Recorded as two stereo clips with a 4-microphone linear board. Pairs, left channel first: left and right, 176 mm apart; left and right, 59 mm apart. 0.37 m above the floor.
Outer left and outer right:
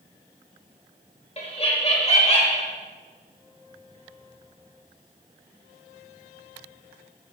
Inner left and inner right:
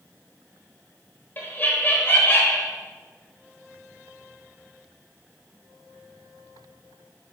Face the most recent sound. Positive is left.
turn(degrees=35)  # may be behind; listen again after turning